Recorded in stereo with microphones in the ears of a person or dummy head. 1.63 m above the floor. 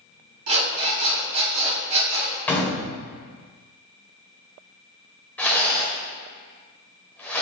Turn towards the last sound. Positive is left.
turn(degrees=10)  # may be behind; listen again after turning